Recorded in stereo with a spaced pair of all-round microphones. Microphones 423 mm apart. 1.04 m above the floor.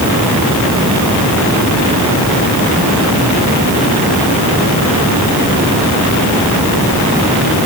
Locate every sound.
Only background noise.